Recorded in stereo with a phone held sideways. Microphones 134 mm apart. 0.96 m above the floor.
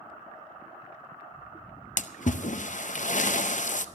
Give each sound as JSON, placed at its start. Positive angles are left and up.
{"t": 2.0, "sound": "a splash", "side_deg": 65, "distance_m": 0.6}